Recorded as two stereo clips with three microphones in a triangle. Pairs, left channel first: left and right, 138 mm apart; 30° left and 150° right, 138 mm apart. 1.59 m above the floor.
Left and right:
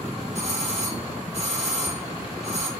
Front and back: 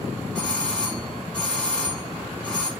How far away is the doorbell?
About 2.5 m.